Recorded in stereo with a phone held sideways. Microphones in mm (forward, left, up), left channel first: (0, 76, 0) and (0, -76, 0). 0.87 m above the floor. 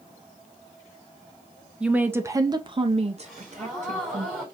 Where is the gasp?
Centre (ahead or behind), 3 m.